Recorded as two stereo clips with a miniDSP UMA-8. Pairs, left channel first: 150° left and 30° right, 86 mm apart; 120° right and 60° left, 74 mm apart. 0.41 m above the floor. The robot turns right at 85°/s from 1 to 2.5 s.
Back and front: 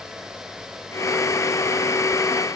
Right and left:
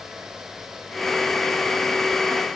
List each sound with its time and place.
Only background noise.